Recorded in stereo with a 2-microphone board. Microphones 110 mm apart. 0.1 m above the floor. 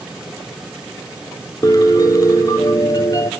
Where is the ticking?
I don't hear ticking.